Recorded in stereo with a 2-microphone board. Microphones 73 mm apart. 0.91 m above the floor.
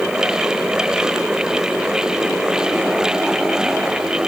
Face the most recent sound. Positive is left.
No sound to turn to.